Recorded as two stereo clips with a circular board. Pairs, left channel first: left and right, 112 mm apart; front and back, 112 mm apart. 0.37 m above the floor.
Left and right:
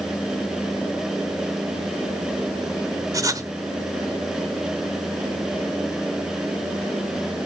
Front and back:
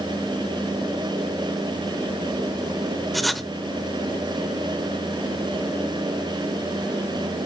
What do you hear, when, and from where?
3.1 s writing: 90° right, 1.0 m